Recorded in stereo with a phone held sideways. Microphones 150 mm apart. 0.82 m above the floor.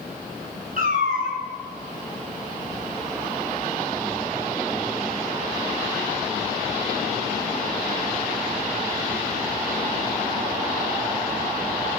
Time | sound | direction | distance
0.8 | a cat meowing | 65° right (ahead or behind) | 3 m